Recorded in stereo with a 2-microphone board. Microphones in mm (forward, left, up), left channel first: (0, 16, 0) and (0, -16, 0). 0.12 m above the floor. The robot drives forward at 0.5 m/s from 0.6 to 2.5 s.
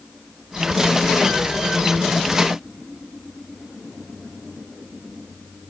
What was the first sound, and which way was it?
Only background noise.